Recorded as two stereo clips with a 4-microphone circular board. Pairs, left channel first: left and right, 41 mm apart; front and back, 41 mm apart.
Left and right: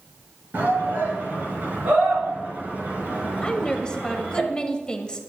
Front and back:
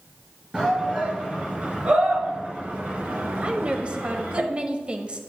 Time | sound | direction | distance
0.5 | a shout | 115° right | 4.5 m
3.4 | a woman speaking | 140° left | 1.2 m